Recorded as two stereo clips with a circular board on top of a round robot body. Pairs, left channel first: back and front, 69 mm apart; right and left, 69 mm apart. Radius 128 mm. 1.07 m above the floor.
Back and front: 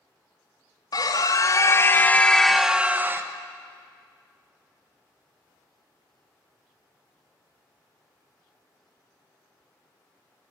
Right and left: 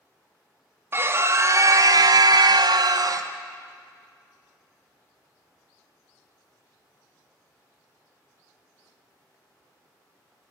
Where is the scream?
150° left, 2.0 m; by 3.3 s 55° left, 1.5 m.